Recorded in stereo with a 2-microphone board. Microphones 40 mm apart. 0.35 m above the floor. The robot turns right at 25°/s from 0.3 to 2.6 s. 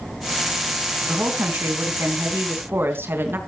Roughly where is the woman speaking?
Behind right.